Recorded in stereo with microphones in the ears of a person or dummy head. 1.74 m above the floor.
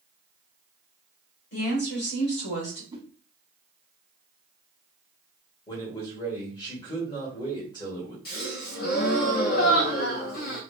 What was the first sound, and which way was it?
A woman speaking, 60° left (ahead or behind).